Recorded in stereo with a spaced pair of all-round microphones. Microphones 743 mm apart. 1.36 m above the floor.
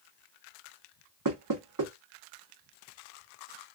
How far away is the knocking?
About 0.9 m.